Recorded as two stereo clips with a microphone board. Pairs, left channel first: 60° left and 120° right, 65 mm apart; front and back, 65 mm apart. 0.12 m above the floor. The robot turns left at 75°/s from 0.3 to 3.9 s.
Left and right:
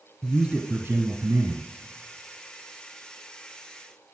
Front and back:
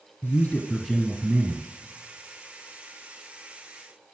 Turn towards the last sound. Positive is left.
turn(degrees=50)